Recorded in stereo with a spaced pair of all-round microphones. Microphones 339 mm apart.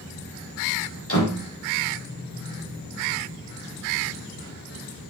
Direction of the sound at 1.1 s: 40° left (ahead or behind).